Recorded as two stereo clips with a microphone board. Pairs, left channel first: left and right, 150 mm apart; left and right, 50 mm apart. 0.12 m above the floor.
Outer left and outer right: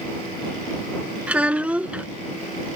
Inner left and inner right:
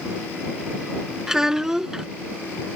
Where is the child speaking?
10° right (ahead or behind).